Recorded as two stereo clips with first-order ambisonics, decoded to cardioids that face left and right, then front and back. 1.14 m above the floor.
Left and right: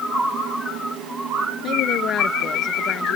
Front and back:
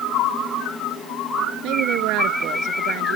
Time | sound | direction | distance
1.6 | a woman speaking | 145° left | ?